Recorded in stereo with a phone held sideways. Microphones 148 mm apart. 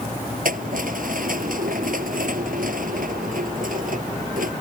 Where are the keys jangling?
70° right (ahead or behind).